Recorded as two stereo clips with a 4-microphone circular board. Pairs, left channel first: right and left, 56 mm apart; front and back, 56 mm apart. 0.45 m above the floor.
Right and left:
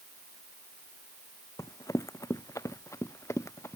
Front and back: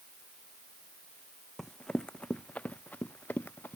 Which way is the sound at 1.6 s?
85° right.